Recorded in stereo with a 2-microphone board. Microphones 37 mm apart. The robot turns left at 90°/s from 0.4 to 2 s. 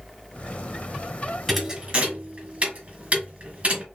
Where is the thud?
5° left (ahead or behind), 1.5 m; by 3.8 s 35° right (ahead or behind), 1.5 m.